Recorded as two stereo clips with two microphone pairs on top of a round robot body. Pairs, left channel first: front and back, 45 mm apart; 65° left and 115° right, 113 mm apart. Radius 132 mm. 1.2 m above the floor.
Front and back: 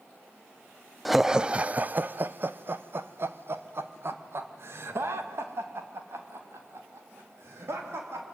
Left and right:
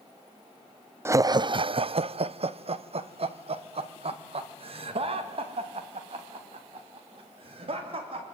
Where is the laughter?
55° right, 0.5 m; by 8.2 s 150° right, 4 m.